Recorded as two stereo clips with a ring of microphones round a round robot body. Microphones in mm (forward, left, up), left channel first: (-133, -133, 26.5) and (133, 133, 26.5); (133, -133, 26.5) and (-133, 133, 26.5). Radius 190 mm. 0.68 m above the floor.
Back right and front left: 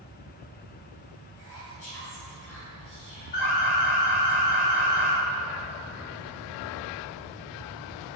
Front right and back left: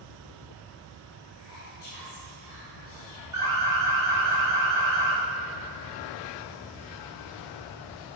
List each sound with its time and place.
1.4 s whispering: 90° right, 2.5 m
3.3 s an alarm: 145° right, 3 m